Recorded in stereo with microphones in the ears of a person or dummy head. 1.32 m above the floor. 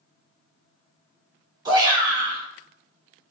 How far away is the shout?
About 1.1 m.